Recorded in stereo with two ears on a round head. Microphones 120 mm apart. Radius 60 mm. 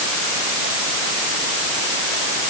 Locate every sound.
Only background noise.